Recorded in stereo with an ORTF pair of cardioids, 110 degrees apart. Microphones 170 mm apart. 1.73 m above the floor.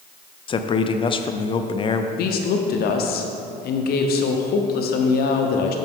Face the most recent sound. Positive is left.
turn(degrees=65)